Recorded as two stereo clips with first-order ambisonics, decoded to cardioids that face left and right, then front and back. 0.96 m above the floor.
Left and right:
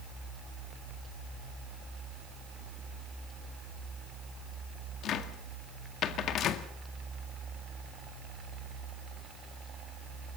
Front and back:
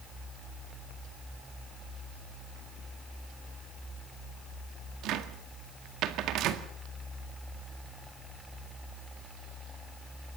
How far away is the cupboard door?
About 1.8 m.